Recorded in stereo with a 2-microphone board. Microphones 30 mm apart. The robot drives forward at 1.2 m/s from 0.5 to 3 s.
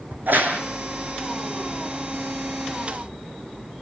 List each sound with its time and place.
0.1 s a crack: 85° right, 4.5 m